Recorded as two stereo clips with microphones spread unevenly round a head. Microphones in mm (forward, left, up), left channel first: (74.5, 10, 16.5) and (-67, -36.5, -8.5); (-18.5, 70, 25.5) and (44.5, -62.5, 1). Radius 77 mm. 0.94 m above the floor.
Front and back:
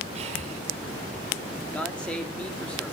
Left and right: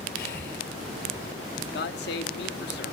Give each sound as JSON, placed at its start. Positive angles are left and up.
{"t": 0.1, "sound": "breathing", "azimuth_deg": 145, "distance_m": 5.0}
{"t": 1.7, "sound": "a man speaking", "azimuth_deg": 105, "distance_m": 2.5}